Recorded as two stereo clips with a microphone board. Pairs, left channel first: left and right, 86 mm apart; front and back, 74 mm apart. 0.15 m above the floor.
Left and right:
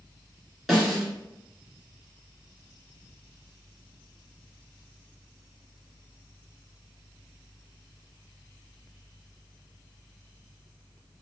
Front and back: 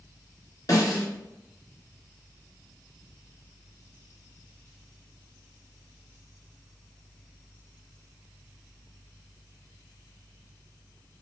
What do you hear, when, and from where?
0.7 s a snare drum: 5° right, 1.9 m